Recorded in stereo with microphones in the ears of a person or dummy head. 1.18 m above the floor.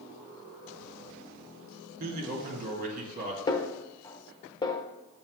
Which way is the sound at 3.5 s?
20° left (ahead or behind).